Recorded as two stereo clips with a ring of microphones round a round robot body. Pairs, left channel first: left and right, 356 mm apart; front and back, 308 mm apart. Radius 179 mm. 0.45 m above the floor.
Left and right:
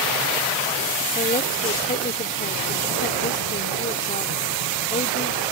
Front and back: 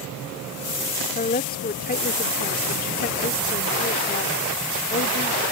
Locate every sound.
1.1 s a woman speaking: 35° left